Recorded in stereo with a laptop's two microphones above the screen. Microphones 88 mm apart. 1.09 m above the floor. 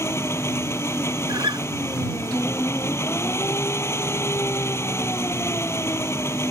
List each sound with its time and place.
0.0 s an engine running: 30° left (ahead or behind)
1.3 s a guitar: 60° right (ahead or behind)